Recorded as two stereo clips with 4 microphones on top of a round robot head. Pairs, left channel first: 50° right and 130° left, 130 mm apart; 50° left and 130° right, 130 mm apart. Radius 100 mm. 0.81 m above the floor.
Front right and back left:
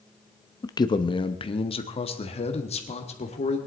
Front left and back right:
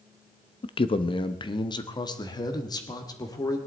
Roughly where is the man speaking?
Ahead.